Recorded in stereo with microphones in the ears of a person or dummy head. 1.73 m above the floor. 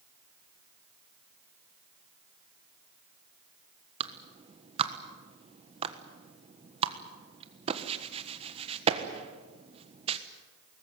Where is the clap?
30° right (ahead or behind), 1.4 m.